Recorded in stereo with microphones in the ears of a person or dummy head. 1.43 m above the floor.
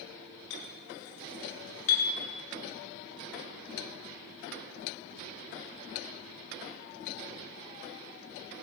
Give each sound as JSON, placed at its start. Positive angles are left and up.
{"t": 0.5, "sound": "a clink", "side_deg": 80, "distance_m": 3.0}